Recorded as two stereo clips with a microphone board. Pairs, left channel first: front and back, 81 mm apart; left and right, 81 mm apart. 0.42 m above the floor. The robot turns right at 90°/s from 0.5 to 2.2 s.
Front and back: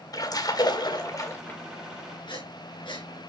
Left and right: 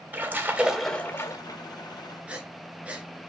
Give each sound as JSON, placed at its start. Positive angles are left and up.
{"t": 0.1, "sound": "a splash", "azimuth_deg": -25, "distance_m": 2.5}
{"t": 2.3, "sound": "breathing", "azimuth_deg": -15, "distance_m": 3.0}